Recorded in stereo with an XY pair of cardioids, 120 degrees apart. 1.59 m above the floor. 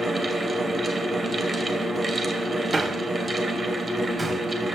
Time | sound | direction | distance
0.0 | a fan | 15° right | 1.1 m
2.7 | a man speaking | 20° right | 1.0 m